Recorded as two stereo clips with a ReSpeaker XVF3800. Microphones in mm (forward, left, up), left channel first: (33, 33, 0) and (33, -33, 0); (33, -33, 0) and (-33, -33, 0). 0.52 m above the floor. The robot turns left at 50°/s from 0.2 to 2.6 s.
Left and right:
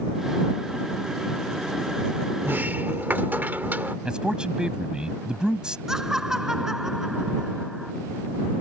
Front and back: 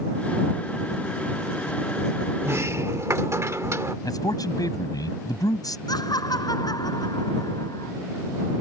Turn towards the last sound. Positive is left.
turn(degrees=-10)